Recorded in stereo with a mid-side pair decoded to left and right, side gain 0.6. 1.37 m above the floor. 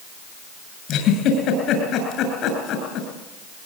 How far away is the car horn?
I don't hear a car horn.